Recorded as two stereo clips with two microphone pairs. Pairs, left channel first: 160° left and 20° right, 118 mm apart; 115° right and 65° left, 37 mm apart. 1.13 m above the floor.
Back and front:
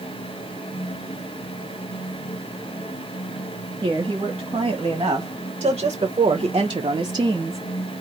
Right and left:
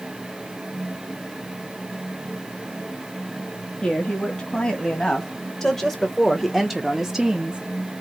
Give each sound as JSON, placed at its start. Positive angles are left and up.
{"t": 3.8, "sound": "a woman speaking", "azimuth_deg": -65, "distance_m": 2.5}